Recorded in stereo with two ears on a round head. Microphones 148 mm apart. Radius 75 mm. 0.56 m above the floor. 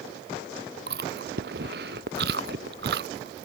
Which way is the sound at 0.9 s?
60° right (ahead or behind).